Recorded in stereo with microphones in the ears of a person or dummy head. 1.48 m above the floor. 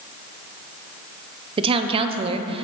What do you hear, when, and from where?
1.6 s a woman speaking: 30° right (ahead or behind), 0.5 m